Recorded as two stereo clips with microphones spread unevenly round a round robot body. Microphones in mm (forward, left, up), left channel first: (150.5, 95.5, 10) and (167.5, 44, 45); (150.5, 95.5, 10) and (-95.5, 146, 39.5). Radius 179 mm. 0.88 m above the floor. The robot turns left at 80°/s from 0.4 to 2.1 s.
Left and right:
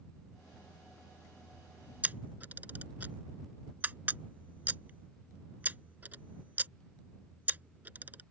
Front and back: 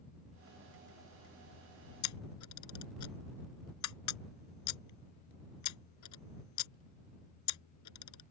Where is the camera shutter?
10° right; by 8.2 s 15° right.